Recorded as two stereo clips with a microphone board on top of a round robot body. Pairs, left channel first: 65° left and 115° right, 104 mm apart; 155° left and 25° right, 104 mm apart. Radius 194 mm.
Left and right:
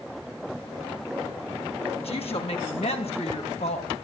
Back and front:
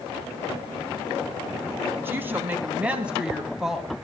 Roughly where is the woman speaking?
Ahead left.